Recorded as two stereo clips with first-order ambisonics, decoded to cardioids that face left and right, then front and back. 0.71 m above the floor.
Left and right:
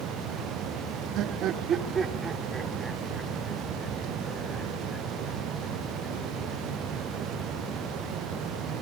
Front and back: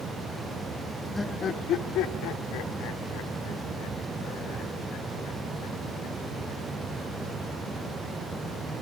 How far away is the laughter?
About 0.9 m.